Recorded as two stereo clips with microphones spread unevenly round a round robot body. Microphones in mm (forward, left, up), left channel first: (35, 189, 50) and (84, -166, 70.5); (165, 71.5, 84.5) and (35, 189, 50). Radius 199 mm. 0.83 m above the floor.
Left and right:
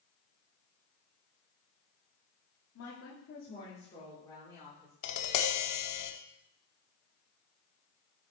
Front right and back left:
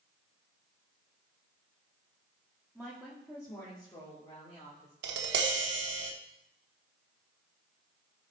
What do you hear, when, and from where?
2.8 s a woman speaking: 55° left, 2 m; by 4.9 s 10° left, 3.5 m
5.0 s tapping: 145° left, 0.8 m